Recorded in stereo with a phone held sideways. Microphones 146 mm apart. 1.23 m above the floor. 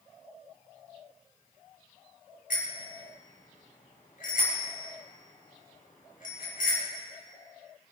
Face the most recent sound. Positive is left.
turn(degrees=70)  # may be behind; listen again after turning